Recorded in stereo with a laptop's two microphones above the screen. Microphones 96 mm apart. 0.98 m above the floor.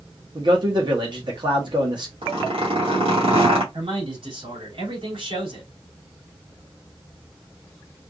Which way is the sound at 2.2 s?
80° right.